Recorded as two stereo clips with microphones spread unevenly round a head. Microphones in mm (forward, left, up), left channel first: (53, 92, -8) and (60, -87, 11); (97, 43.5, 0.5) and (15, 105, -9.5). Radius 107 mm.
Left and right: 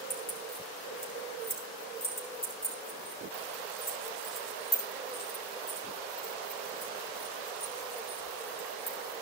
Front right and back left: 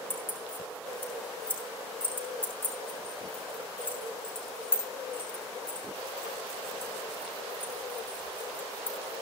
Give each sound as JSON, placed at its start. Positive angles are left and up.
{"t": 0.1, "sound": "keys jangling", "azimuth_deg": 35, "distance_m": 9.0}